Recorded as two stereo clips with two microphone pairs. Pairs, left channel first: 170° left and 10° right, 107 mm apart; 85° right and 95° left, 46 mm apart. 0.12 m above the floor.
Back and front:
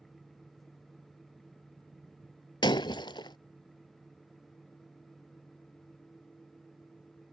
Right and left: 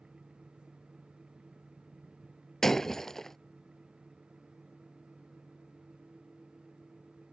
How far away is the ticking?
I don't hear ticking.